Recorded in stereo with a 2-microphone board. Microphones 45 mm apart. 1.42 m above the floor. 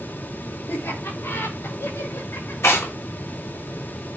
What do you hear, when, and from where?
0.7 s laughter: 80° left, 4 m; by 2.5 s 85° left, 6 m
2.6 s tearing paper: 80° left, 2.5 m